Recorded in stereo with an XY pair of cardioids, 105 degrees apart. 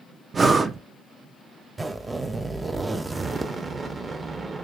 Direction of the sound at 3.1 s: 35° right.